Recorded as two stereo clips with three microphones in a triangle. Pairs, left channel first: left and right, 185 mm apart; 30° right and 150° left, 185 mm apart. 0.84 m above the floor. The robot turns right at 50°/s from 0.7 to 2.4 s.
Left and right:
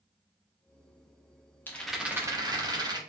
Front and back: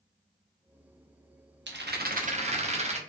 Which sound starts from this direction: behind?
A rattle, at 1.7 s.